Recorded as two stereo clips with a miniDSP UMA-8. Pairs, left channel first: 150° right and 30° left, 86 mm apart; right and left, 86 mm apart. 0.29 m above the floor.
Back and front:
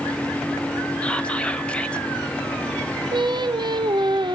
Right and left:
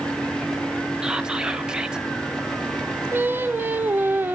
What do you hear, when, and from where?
1.0 s whispering: 155° left, 1.1 m
3.1 s singing: 25° left, 0.6 m